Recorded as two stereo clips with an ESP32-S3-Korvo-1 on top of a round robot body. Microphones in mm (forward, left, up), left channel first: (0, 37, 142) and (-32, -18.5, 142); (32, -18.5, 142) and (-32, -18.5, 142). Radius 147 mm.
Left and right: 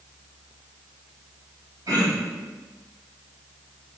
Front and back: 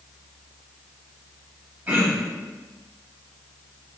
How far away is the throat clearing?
About 1.9 m.